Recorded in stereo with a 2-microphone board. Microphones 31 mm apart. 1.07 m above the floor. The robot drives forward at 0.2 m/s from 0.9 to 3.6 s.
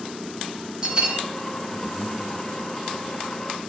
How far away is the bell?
About 0.8 m.